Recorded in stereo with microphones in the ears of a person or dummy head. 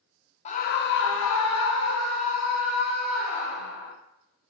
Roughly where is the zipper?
I don't hear a zipper.